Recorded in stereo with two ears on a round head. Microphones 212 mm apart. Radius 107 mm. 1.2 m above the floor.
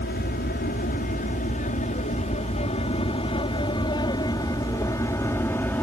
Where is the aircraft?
40° left (ahead or behind); by 5.8 s 10° left (ahead or behind).